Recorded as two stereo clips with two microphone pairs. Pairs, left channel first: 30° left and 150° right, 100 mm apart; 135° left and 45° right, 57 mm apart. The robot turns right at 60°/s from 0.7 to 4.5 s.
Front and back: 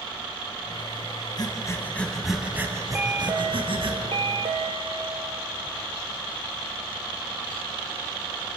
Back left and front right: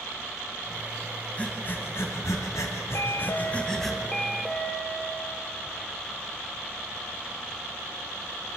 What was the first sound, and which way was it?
Breathing, 70° left.